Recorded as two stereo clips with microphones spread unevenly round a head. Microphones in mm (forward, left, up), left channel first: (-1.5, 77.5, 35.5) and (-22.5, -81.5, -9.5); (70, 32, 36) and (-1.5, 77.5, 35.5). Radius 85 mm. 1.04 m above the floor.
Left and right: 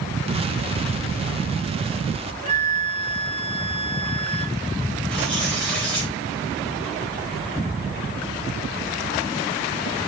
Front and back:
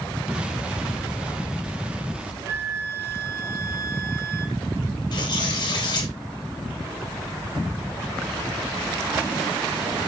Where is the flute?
145° right, 0.9 m.